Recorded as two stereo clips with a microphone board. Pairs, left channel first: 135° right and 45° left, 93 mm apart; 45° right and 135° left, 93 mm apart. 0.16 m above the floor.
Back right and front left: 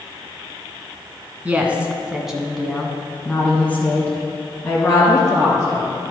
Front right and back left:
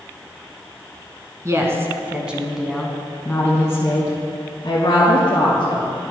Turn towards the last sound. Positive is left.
turn(degrees=-70)